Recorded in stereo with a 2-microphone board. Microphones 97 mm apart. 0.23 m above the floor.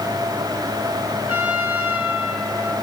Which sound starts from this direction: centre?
A trumpet, at 1.3 s.